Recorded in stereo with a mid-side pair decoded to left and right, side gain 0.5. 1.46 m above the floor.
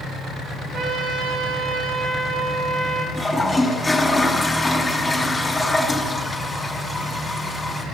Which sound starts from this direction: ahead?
A toilet flushing, at 3.1 s.